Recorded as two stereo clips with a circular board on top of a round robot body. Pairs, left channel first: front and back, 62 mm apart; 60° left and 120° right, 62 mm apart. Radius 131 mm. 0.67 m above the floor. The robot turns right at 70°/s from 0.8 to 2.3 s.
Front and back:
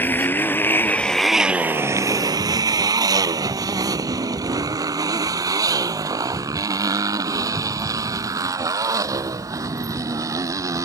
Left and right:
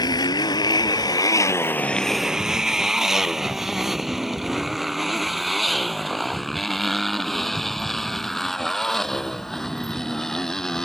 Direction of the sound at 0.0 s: 60° left.